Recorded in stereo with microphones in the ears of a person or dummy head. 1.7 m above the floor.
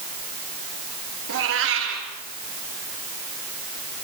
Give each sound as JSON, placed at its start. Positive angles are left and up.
{"t": 1.3, "sound": "a cat meowing", "side_deg": -70, "distance_m": 4.5}